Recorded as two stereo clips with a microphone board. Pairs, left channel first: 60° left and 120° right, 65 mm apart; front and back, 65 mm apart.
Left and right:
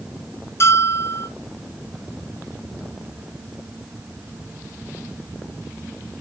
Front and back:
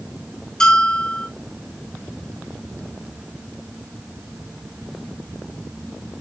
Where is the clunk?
I don't hear a clunk.